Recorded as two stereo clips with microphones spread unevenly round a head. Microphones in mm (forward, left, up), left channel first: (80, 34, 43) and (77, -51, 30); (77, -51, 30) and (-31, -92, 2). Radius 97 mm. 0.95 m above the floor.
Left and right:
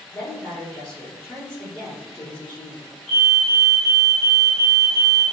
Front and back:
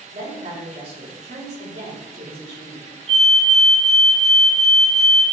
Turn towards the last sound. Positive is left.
turn(degrees=165)